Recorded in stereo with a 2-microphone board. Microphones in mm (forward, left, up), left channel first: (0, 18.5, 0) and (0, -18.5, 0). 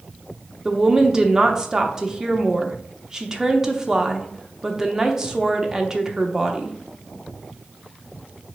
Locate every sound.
0.7 s a woman speaking: 20° right (ahead or behind), 0.6 m